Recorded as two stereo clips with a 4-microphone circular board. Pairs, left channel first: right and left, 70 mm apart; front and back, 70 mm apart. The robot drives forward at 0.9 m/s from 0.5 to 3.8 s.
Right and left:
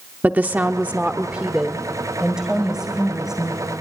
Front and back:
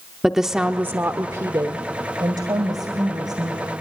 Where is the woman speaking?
105° left, 0.8 m; by 3.7 s 175° left, 3 m.